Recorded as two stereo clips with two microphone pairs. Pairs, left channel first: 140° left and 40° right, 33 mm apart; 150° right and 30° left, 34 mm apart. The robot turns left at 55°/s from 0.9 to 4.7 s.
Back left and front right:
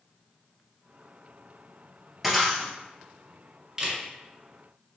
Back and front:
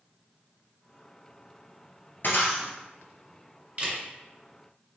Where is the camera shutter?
20° left, 1.9 m; by 4.0 s 10° left, 1.9 m.